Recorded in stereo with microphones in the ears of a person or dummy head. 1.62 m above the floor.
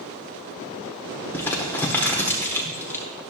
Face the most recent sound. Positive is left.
turn(degrees=10)  # may be behind; listen again after turning